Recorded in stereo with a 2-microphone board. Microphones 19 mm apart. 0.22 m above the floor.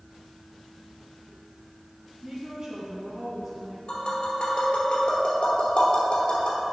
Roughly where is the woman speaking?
Right.